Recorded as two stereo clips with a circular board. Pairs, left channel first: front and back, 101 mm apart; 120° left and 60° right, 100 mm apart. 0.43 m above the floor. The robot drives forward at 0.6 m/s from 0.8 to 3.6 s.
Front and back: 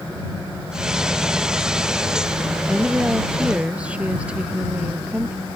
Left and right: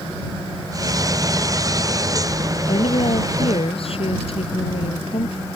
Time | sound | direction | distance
2.7 | a woman speaking | 100° left | ?